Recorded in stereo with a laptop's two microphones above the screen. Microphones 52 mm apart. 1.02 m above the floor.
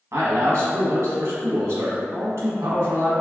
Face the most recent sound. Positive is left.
turn(degrees=-60)  # may be behind; listen again after turning